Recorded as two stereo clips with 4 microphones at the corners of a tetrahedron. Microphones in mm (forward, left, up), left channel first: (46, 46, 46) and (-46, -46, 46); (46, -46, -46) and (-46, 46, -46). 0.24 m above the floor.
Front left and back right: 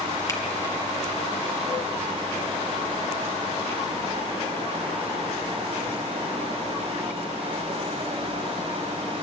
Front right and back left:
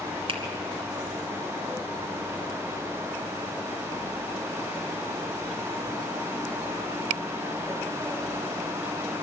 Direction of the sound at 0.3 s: 105° left.